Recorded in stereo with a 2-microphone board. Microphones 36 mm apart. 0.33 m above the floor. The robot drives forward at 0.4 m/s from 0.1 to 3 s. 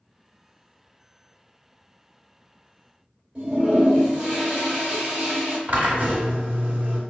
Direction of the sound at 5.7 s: 45° right (ahead or behind).